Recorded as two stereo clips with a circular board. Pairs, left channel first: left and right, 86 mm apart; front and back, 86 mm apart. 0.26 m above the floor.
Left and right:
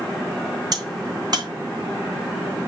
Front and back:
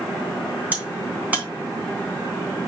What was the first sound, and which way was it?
A crack, 110° right.